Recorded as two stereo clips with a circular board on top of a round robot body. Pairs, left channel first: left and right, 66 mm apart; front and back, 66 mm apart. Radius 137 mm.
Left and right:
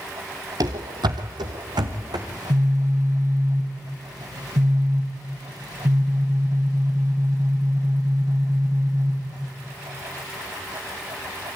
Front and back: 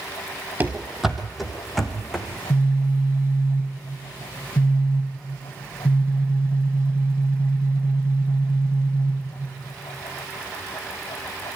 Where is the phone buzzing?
65° right, 4.5 m.